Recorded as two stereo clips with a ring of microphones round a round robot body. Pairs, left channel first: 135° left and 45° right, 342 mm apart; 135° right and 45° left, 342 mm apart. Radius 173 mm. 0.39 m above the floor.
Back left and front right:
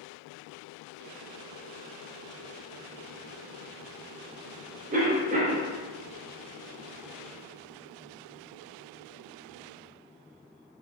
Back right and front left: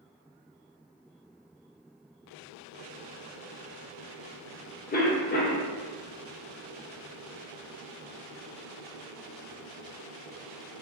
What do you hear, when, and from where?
4.9 s a cough: 95° right, 0.9 m